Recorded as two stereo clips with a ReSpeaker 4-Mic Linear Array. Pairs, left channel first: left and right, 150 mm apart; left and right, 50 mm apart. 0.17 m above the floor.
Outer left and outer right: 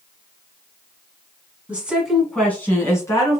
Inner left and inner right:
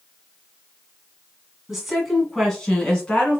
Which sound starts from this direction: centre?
A woman speaking, at 1.7 s.